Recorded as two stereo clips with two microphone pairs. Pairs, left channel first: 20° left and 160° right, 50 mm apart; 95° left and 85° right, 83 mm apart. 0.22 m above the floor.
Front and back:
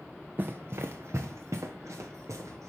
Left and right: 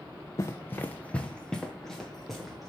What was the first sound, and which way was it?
Running footsteps, 145° left.